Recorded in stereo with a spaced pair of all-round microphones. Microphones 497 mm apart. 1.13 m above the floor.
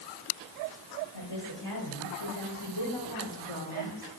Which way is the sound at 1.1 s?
50° left (ahead or behind).